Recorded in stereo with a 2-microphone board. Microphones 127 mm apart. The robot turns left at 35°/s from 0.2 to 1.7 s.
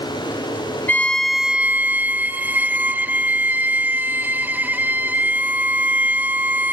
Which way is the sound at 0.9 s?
15° left (ahead or behind).